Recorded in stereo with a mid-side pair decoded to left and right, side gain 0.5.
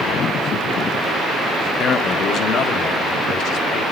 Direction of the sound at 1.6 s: 45° left.